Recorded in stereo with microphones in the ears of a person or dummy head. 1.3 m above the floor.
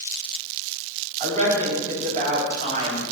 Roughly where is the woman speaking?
Right.